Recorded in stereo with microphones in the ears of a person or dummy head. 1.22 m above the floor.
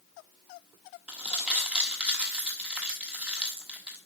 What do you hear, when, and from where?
1.1 s crumpling: 5° right (ahead or behind), 1.1 m